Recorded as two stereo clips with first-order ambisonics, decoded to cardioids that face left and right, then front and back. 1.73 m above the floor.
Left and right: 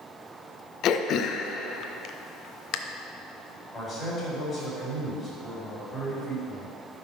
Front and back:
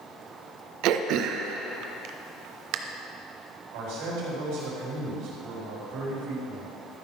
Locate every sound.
0.8 s throat clearing: 140° left, 0.6 m
3.7 s a man speaking: 175° left, 4 m